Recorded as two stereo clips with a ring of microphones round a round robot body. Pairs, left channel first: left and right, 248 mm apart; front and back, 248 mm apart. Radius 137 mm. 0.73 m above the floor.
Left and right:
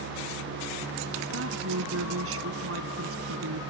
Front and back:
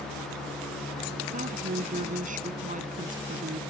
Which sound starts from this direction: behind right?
A woman speaking, at 1.3 s.